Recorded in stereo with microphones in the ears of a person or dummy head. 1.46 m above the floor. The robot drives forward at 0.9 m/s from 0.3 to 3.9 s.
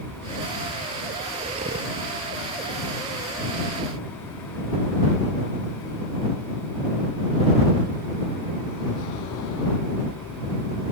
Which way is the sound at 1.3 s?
30° right (ahead or behind).